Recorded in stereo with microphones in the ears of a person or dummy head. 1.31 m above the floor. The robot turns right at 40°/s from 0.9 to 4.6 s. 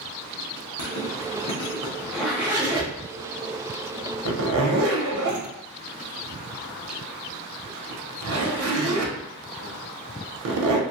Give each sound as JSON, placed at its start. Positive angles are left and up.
{"t": 0.8, "sound": "a zipper", "side_deg": 55, "distance_m": 0.8}